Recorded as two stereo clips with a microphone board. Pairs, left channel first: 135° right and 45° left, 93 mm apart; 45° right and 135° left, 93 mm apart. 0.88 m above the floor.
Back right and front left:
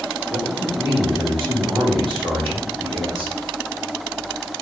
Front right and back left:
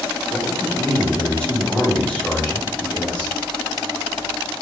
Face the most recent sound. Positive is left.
turn(degrees=30)